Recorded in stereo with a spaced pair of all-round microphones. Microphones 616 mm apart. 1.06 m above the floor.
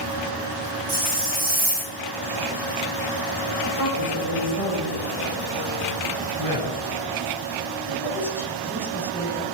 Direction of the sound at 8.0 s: 5° left (ahead or behind).